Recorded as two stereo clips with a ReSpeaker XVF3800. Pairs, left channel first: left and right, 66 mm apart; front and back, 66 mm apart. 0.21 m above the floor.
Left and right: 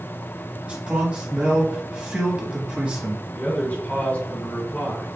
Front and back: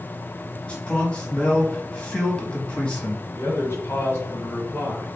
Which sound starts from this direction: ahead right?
A man speaking, at 0.7 s.